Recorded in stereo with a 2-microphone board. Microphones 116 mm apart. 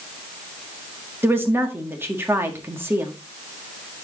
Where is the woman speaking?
20° right (ahead or behind), 1.5 m.